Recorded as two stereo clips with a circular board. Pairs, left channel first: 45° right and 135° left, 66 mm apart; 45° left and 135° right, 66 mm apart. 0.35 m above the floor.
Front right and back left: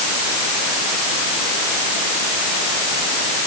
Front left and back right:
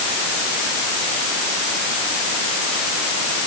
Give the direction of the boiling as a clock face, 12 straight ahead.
No boiling in this recording.